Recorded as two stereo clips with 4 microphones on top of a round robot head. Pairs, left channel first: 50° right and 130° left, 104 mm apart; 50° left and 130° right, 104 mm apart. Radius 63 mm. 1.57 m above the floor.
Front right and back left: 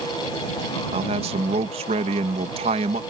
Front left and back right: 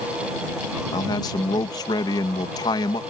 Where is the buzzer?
I don't hear a buzzer.